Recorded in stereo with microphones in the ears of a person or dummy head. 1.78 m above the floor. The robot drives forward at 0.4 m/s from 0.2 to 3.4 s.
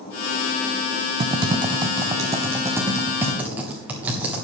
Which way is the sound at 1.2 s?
30° right (ahead or behind).